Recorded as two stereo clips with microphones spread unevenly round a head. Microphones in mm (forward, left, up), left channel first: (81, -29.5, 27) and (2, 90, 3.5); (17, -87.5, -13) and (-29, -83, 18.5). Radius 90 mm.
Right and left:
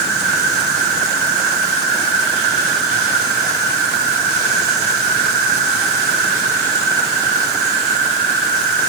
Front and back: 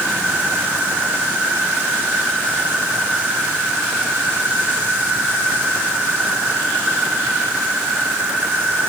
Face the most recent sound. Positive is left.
turn(degrees=145)